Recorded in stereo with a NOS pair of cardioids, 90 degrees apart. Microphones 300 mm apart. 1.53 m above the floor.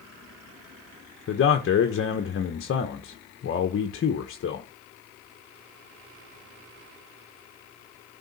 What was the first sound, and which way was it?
A man speaking, 45° left.